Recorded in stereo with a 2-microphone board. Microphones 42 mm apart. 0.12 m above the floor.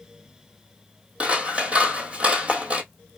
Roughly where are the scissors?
Right.